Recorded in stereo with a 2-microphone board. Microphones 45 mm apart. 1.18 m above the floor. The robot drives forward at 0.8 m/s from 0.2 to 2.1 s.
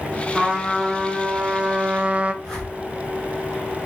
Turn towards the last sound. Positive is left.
turn(degrees=15)  # may be behind; listen again after turning